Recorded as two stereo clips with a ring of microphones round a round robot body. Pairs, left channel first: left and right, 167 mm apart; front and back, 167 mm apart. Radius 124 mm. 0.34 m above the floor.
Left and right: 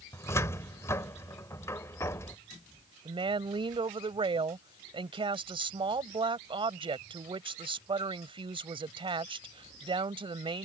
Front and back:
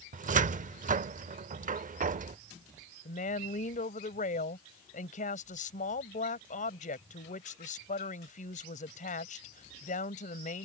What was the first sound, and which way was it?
A cupboard door, 160° left.